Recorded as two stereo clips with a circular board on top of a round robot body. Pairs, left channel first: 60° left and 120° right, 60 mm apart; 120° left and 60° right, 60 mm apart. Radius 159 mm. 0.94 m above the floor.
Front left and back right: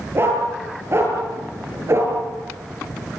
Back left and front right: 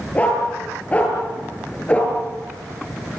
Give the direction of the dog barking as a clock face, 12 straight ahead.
6 o'clock.